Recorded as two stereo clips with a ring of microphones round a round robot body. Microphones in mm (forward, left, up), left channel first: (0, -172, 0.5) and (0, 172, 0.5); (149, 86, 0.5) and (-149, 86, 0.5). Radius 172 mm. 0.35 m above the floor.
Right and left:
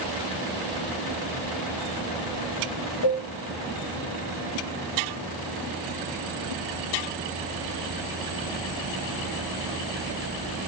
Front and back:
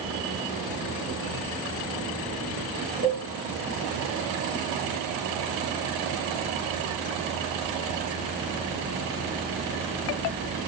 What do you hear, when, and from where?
3.0 s a cowbell: 115° right, 5 m